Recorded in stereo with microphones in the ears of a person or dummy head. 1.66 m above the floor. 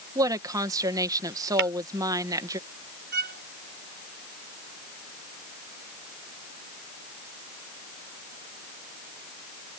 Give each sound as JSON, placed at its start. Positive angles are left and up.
{"t": 0.1, "sound": "a woman speaking", "side_deg": -20}
{"t": 1.6, "sound": "tapping", "side_deg": -65}
{"t": 3.1, "sound": "a violin", "side_deg": -50}